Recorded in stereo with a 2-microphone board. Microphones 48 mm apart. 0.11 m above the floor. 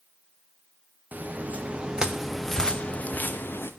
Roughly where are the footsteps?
Right.